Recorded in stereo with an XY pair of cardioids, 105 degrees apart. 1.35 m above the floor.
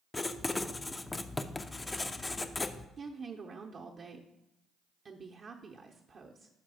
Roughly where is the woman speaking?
Ahead right.